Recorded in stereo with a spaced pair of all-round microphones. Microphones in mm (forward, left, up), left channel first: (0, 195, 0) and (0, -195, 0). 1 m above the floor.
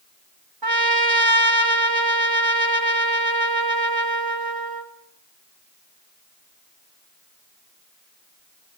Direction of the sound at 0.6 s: 65° right (ahead or behind).